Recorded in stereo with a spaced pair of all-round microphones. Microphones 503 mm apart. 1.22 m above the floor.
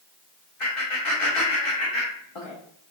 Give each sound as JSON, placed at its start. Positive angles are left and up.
{"t": 0.6, "sound": "laughter", "side_deg": 80, "distance_m": 0.8}